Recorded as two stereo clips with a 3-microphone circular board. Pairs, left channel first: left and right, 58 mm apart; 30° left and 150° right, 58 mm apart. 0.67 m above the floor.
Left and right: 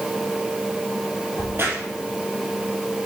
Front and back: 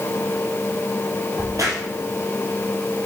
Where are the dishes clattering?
I don't hear dishes clattering.